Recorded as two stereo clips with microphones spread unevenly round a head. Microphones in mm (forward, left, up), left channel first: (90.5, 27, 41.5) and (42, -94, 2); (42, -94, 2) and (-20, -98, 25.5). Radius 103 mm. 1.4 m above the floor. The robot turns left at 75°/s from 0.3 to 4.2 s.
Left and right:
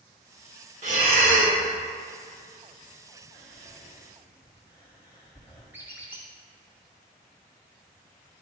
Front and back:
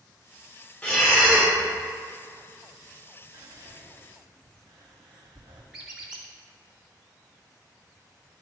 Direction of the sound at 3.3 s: 160° right.